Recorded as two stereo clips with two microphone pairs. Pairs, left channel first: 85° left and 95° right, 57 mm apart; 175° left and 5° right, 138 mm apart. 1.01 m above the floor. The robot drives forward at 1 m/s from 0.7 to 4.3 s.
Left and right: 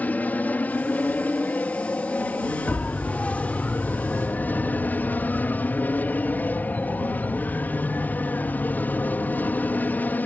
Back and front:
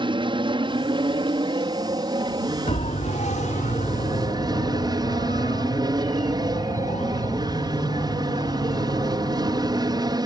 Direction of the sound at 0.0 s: 35° left.